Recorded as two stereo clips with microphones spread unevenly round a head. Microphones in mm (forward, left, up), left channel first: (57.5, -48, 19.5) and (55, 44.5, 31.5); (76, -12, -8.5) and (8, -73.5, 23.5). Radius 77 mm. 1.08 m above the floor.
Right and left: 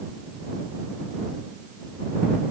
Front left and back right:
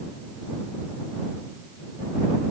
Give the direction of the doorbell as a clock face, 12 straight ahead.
I don't hear a doorbell.